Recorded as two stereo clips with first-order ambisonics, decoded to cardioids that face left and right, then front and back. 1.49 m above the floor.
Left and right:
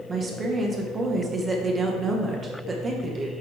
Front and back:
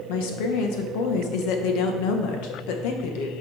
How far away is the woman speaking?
About 1.2 m.